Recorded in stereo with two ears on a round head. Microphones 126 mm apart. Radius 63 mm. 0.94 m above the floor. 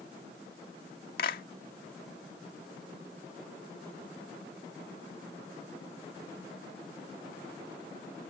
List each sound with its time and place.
1.2 s a clap: 70° left (ahead or behind)